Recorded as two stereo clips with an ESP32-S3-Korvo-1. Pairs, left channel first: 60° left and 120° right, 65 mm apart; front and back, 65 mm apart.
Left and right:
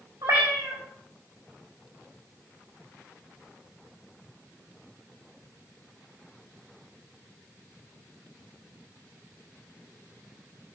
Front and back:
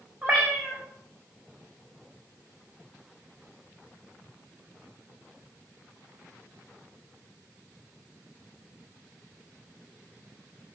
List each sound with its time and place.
0.2 s a cat meowing: 110° right, 3 m